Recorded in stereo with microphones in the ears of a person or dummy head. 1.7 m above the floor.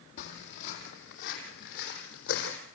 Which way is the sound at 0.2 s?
55° left (ahead or behind).